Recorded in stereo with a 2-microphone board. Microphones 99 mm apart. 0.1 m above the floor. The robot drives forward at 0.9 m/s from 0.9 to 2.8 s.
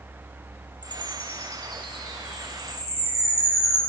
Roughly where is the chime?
Left.